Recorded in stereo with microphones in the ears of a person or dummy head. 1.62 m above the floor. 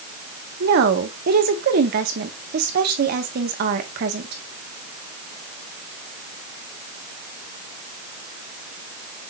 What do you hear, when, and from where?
0.6 s a woman speaking: 65° right (ahead or behind), 1.9 m